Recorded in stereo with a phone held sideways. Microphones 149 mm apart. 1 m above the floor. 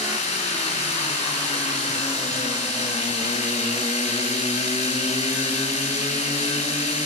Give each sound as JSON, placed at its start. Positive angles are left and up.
{"t": 0.0, "sound": "a machine running", "side_deg": 50, "distance_m": 7.0}